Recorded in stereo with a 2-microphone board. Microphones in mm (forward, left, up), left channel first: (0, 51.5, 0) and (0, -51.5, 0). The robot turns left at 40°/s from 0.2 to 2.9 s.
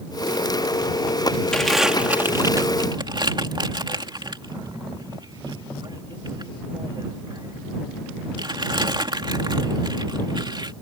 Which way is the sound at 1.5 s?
10° left (ahead or behind).